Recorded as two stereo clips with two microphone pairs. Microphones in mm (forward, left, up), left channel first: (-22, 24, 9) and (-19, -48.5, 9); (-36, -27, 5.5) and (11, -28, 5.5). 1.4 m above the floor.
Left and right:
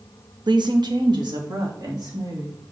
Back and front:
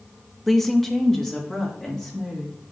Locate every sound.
0.5 s a woman speaking: 95° right, 0.7 m; by 2.5 s 100° right, 3.5 m